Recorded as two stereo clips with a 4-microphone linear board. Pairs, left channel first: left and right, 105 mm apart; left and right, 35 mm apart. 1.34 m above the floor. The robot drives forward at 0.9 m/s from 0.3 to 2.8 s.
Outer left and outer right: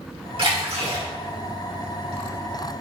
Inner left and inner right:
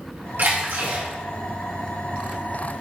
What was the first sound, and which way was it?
A splash, 60° right (ahead or behind).